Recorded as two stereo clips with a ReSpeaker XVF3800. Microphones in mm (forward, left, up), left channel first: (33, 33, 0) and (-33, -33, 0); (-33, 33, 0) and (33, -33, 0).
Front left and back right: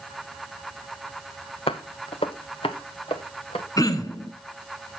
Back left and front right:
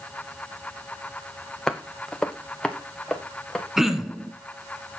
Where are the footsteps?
50° left, 0.8 m; by 3.7 s 55° left, 1.8 m.